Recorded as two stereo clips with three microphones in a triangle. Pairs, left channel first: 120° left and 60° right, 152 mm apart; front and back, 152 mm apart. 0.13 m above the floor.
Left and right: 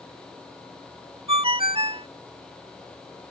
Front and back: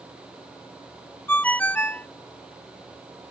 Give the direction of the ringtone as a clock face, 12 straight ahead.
2 o'clock.